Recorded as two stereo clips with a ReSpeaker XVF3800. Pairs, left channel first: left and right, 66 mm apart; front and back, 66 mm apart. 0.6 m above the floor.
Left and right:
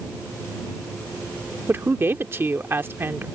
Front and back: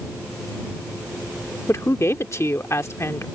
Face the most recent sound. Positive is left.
turn(degrees=-40)